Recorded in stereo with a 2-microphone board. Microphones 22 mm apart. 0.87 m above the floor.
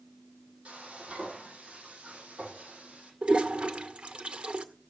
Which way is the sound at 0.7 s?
65° right (ahead or behind).